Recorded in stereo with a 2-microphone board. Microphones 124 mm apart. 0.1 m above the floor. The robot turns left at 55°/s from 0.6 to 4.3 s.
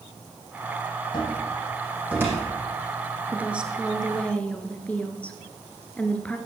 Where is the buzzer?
I don't hear a buzzer.